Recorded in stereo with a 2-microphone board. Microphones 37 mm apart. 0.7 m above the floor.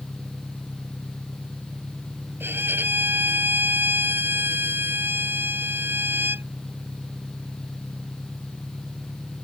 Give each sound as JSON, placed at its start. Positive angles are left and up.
{"t": 0.0, "sound": "an engine running", "side_deg": -25}
{"t": 2.4, "sound": "a violin", "side_deg": -85}